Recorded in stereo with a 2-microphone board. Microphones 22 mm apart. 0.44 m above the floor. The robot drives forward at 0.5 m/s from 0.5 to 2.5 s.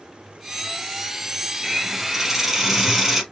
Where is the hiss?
10° right (ahead or behind), 2 m.